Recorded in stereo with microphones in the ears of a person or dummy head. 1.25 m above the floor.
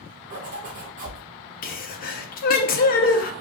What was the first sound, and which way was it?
A zipper, 45° right (ahead or behind).